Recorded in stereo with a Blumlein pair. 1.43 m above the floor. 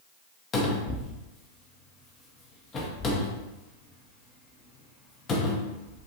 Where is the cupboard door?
25° left, 0.9 m.